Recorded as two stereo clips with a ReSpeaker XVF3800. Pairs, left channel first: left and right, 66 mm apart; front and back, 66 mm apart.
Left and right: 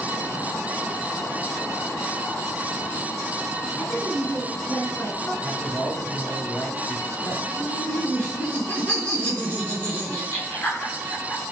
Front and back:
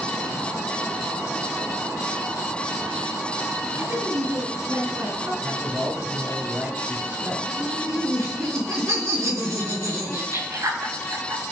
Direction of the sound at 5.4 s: 135° left.